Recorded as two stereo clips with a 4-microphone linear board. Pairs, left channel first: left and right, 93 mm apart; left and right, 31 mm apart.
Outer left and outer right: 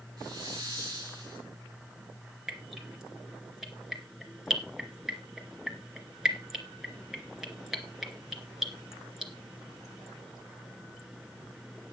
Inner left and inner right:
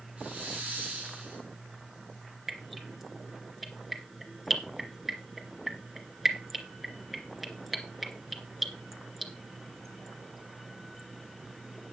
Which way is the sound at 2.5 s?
5° right (ahead or behind).